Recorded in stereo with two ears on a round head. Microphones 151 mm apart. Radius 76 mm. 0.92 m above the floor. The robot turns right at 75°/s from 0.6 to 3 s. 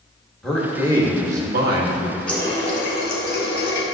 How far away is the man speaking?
About 1.3 m.